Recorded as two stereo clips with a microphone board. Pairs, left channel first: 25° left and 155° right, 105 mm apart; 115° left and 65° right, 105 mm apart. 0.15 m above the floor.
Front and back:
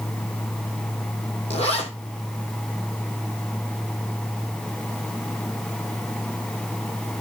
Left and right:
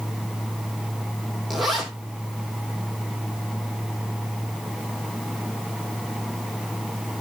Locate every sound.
1.5 s a zipper: 20° left, 2.5 m